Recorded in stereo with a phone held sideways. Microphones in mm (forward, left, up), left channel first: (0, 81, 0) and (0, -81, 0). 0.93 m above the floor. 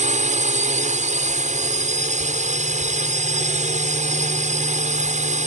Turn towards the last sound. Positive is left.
turn(degrees=-50)  # may be behind; listen again after turning